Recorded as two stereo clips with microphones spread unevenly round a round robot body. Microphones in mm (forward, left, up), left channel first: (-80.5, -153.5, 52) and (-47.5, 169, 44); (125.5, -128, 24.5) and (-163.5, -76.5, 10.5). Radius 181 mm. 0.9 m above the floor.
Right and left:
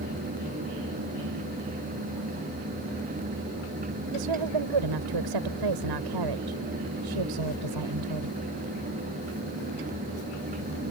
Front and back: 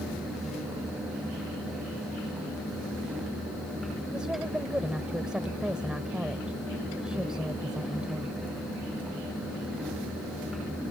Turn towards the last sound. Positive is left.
turn(degrees=80)